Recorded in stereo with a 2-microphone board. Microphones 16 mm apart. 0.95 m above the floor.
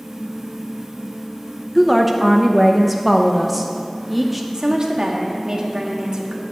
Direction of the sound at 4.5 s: 45° right (ahead or behind).